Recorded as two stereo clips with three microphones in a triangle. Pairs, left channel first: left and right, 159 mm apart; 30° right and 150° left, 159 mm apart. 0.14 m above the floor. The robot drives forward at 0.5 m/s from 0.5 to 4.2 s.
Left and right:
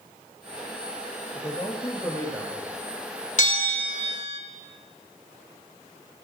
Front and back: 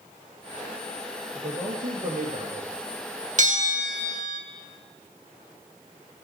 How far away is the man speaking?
About 2 m.